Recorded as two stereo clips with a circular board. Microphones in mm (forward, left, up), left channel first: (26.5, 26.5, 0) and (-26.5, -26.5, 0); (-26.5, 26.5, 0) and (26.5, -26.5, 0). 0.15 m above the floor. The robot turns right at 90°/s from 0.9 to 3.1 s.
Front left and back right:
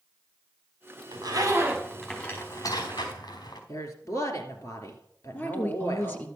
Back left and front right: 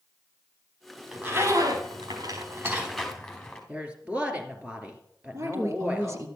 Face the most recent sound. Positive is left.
turn(degrees=-10)